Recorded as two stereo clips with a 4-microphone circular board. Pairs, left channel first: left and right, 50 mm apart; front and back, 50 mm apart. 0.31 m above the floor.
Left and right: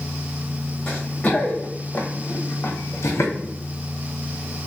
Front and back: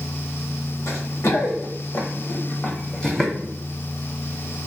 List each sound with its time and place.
0.9 s running footsteps: 15° left, 1.3 m; by 3.3 s 85° left, 0.9 m